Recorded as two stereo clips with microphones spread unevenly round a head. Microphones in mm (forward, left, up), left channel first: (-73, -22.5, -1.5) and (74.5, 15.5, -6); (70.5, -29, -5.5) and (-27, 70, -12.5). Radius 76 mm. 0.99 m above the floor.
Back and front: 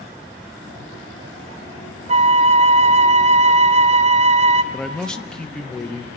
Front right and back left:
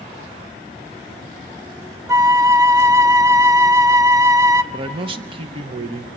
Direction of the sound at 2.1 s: 65° left.